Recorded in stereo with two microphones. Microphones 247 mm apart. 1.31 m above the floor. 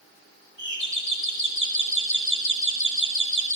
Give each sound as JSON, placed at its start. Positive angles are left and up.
{"t": 0.6, "sound": "a doorbell", "side_deg": -60, "distance_m": 4.0}